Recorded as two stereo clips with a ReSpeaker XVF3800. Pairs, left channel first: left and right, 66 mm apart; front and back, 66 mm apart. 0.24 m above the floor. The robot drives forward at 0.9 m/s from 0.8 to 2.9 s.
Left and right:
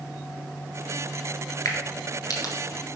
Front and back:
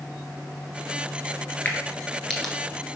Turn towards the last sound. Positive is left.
turn(degrees=95)